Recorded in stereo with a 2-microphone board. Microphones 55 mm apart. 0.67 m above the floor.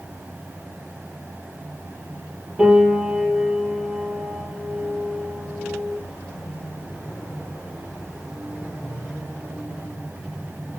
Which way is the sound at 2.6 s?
15° right (ahead or behind).